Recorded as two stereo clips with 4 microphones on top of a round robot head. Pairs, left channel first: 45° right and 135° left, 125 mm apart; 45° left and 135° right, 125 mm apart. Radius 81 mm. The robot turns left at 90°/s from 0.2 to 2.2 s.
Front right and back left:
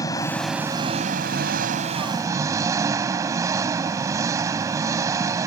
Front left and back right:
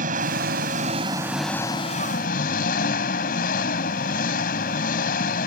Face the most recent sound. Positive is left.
turn(degrees=65)